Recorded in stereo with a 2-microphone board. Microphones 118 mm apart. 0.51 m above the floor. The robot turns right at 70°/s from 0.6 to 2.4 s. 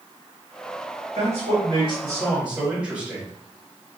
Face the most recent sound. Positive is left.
turn(degrees=-10)